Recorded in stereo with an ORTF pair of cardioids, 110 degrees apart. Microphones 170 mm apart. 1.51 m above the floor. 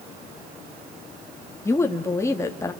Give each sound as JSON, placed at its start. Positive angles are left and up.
{"t": 1.6, "sound": "a woman speaking", "azimuth_deg": 15, "distance_m": 2.5}